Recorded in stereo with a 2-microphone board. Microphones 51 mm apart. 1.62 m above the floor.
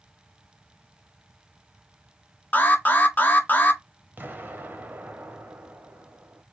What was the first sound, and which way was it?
An alarm, 35° left (ahead or behind).